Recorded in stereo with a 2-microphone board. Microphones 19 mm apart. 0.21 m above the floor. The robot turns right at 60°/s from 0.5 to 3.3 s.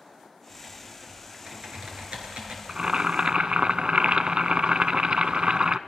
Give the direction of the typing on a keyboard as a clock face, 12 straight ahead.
6 o'clock.